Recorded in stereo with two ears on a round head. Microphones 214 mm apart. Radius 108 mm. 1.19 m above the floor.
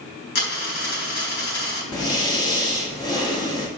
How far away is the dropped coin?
About 4 m.